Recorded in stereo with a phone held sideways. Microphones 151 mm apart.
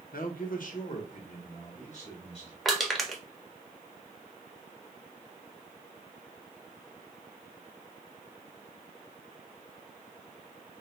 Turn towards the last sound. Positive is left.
turn(degrees=0)  # may be behind; listen again after turning